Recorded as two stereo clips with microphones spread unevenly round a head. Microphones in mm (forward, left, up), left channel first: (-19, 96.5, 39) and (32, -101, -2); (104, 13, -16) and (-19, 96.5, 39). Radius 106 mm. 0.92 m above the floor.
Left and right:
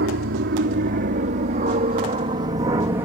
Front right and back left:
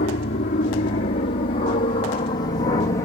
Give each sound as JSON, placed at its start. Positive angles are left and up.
{"t": 0.0, "sound": "an aircraft", "azimuth_deg": -55}